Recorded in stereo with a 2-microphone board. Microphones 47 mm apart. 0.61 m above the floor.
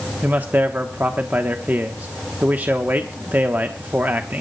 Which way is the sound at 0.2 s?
45° right (ahead or behind).